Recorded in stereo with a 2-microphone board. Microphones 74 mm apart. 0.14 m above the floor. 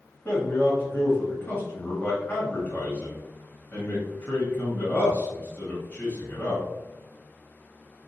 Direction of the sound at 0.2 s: 25° left (ahead or behind).